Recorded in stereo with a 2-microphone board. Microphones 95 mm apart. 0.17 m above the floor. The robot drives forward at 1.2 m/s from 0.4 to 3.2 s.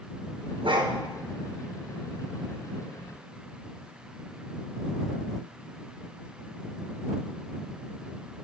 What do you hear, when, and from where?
0.6 s a dog barking: 65° right (ahead or behind), 1.3 m; by 0.9 s 55° right (ahead or behind), 1.5 m